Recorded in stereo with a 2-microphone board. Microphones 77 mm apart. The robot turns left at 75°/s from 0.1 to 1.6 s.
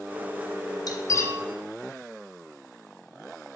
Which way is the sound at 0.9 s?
55° left (ahead or behind).